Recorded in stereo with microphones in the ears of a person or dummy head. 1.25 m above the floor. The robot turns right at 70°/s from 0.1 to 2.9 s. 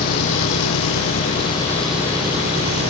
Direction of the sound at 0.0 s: 55° left.